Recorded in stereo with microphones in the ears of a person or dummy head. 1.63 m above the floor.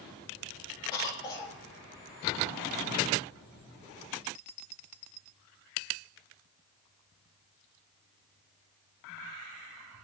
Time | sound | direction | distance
0.9 | a cough | 25° left (ahead or behind) | 2.5 m